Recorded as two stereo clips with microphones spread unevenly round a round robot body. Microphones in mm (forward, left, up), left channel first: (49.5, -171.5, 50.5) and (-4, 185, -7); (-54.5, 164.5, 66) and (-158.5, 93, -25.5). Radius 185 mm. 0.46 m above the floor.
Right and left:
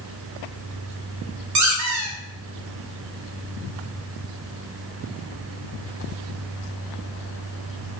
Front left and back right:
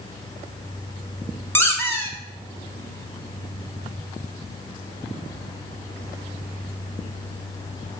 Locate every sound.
1.6 s a squeak: 130° left, 0.8 m